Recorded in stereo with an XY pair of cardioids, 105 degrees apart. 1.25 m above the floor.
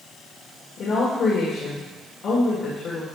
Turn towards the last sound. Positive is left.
turn(degrees=65)